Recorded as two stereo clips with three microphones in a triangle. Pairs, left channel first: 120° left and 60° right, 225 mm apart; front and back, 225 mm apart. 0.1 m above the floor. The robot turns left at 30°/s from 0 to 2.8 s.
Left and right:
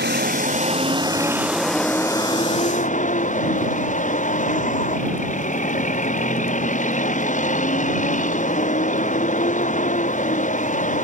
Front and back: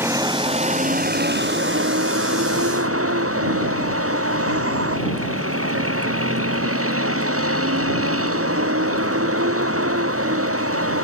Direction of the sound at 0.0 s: 100° right.